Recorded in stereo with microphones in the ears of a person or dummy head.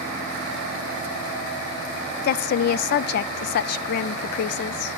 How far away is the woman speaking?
About 0.5 m.